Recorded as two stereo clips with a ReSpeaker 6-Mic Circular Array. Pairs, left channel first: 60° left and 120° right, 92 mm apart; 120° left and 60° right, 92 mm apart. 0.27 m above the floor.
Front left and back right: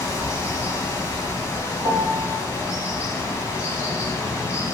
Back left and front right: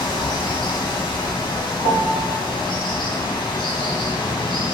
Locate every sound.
0.0 s running water: 115° left, 1.1 m
1.8 s a piano: 130° left, 1.3 m